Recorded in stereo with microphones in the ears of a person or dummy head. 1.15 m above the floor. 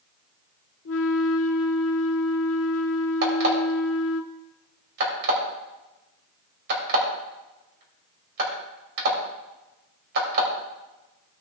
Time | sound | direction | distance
0.8 | a flute | 75° left (ahead or behind) | 1.0 m
3.2 | an alarm clock | 65° right (ahead or behind) | 3 m